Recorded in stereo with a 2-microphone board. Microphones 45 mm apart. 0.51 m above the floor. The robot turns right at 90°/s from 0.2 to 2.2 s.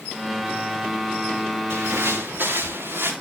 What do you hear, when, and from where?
1.7 s footsteps: 75° right (ahead or behind), 2.5 m; by 3.1 s 60° right (ahead or behind), 4.5 m